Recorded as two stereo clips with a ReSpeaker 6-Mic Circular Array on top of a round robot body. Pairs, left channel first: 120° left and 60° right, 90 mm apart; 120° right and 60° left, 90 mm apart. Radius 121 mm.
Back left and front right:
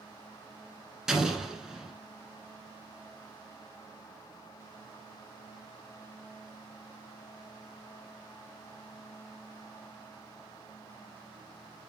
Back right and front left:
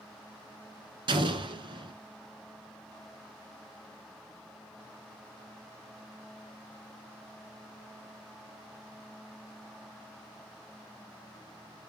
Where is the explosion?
25° left, 1.2 m.